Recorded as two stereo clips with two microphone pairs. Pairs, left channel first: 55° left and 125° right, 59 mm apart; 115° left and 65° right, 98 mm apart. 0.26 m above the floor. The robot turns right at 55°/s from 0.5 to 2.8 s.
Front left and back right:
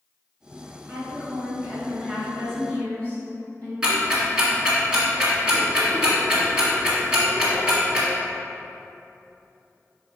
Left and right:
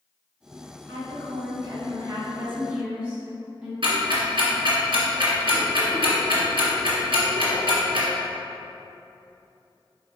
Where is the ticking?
50° right, 1.4 m.